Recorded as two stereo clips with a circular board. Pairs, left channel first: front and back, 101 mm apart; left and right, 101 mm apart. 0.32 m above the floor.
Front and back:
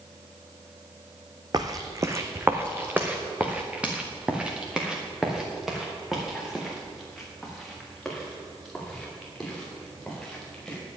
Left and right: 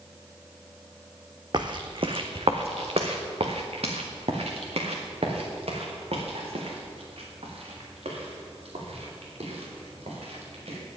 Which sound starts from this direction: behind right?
Footsteps, at 1.5 s.